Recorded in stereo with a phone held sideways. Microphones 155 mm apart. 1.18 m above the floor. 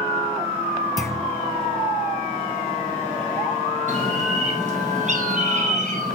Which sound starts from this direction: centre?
A clunk, at 1.0 s.